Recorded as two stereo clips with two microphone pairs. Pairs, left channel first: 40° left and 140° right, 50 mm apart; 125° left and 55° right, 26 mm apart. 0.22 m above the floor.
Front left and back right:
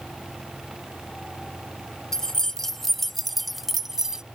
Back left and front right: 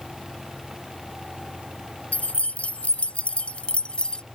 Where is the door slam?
I don't hear a door slam.